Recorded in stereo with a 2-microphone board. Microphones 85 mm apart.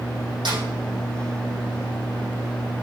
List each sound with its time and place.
0.5 s a snare drum: 70° right (ahead or behind), 5.5 m